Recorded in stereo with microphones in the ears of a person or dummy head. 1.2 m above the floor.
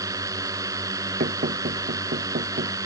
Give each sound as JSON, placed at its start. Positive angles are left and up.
{"t": 0.0, "sound": "a drone", "side_deg": -15}
{"t": 1.2, "sound": "knocking", "side_deg": -40}